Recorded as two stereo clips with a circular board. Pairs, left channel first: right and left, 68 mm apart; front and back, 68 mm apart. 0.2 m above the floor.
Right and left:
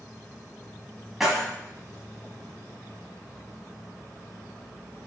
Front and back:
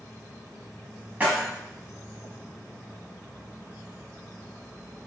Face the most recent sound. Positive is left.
turn(degrees=175)